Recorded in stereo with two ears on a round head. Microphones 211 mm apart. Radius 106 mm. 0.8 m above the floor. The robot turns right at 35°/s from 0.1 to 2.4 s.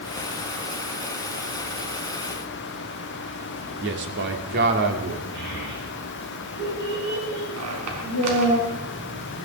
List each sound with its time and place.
3.8 s a man speaking: 50° right (ahead or behind), 2.5 m
5.3 s a child speaking: 50° right (ahead or behind), 6.5 m
7.6 s a squeak: 75° right (ahead or behind), 4.5 m